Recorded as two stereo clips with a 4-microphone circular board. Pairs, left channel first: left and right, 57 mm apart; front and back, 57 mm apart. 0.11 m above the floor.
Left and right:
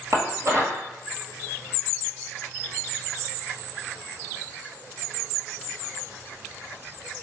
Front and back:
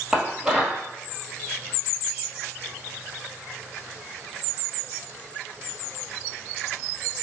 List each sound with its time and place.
0.1 s dishes clattering: 105° right, 1.6 m